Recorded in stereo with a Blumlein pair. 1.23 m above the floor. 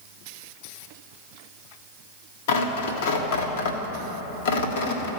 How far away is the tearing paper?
About 1.6 m.